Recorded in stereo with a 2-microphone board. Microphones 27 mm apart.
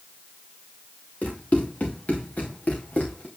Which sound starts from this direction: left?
Running footsteps, at 1.2 s.